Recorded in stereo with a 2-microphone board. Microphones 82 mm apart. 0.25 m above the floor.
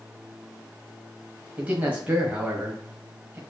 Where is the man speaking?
20° right (ahead or behind), 1.6 m.